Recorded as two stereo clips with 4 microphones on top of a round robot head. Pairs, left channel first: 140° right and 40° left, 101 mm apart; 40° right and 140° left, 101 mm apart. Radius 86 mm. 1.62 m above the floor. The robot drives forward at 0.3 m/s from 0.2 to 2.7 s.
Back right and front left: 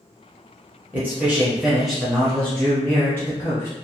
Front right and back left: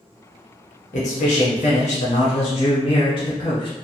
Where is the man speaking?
35° right, 0.9 m; by 3.7 s 75° right, 0.6 m.